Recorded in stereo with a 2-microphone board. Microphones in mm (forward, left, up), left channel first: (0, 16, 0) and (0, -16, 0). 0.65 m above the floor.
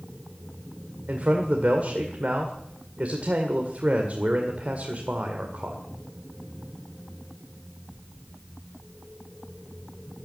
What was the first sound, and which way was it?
A man speaking, 45° right (ahead or behind).